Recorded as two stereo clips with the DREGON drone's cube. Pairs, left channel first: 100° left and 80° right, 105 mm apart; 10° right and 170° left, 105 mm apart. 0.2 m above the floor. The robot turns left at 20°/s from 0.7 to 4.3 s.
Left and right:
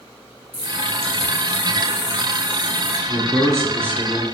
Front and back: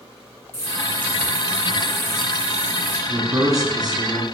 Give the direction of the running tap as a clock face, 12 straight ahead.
2 o'clock.